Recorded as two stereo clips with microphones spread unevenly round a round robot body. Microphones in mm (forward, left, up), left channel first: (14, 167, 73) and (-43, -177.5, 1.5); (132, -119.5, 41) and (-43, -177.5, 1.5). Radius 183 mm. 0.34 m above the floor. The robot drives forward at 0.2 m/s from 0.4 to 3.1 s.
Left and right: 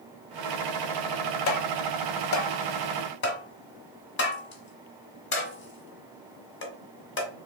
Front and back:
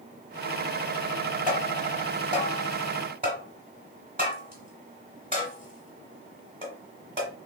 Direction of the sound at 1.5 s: 125° left.